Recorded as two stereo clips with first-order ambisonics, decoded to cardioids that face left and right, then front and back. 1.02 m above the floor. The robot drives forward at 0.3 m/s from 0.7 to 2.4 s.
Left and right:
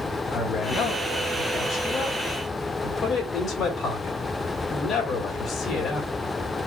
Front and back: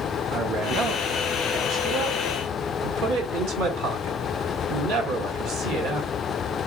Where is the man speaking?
145° left, 1.3 m; by 6.1 s 155° left, 1.7 m.